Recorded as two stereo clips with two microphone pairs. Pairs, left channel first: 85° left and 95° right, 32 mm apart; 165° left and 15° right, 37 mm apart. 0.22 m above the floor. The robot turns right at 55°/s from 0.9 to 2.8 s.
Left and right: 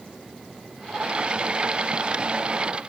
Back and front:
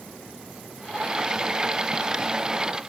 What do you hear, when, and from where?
Only background noise.